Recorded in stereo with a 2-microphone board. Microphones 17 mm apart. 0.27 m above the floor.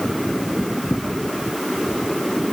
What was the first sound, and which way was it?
Only background noise.